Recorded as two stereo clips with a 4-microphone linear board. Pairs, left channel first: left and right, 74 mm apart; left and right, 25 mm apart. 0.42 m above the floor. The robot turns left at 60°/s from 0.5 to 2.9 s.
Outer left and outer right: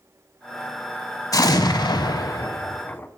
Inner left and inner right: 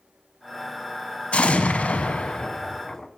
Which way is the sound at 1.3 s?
125° left.